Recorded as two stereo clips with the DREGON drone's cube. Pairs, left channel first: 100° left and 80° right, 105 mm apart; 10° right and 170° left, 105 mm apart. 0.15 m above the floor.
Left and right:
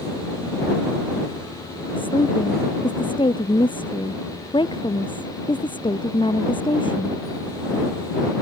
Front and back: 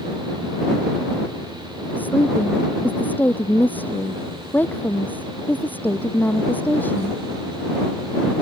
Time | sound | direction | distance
2.0 | a woman speaking | 60° left | ?